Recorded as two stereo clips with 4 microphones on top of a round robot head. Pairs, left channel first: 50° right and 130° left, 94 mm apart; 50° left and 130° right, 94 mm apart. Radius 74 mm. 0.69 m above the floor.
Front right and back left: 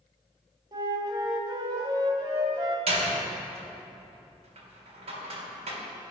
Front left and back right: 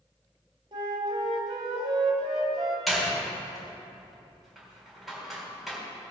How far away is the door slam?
About 3.5 m.